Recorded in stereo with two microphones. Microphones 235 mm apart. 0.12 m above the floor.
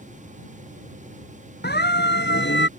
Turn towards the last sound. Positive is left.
turn(degrees=50)  # may be behind; listen again after turning